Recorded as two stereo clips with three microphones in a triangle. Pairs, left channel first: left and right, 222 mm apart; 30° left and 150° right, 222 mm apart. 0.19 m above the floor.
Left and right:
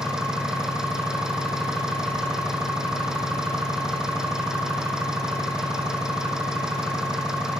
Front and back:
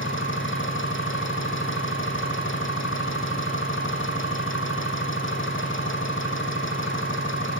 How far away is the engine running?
About 4 m.